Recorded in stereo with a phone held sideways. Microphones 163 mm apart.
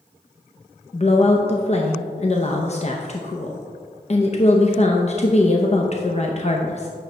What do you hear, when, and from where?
0.9 s a woman speaking: 40° left (ahead or behind), 0.6 m